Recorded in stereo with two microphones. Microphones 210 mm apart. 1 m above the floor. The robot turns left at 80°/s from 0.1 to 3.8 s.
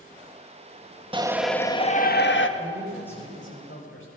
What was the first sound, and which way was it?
A shout, 155° right.